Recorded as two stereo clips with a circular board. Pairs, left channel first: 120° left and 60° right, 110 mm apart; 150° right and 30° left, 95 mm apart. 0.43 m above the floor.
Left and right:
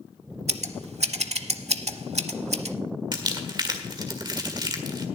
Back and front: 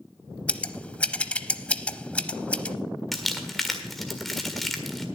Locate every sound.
0.5 s scissors: 75° right, 0.7 m
3.1 s crumpling: 65° right, 1.7 m